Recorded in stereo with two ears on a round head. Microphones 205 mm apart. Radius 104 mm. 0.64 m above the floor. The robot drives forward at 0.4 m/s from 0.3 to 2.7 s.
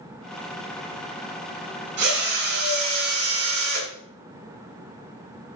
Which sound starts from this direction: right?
A drill, at 2.0 s.